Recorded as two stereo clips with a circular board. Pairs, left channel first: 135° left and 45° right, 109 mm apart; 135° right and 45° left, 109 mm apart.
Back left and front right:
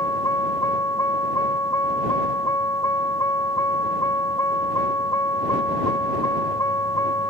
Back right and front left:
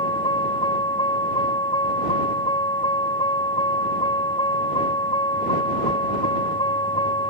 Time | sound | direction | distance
0.0 | a vehicle | 170° right | ?